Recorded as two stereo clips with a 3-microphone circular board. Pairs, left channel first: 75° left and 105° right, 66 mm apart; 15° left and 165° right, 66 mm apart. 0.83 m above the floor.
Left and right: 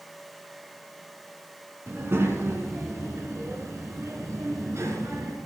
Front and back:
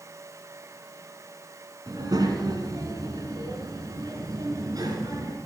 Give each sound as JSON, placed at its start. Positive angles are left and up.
{"t": 1.9, "sound": "a child speaking", "azimuth_deg": -155, "distance_m": 4.5}